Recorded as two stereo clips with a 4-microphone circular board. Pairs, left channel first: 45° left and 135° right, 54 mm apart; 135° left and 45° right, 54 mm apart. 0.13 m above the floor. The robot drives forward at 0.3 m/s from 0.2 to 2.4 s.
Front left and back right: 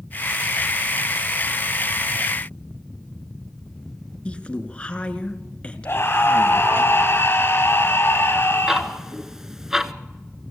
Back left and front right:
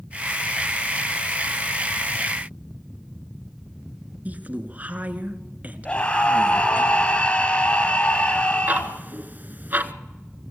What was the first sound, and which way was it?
A woman speaking, 10° right.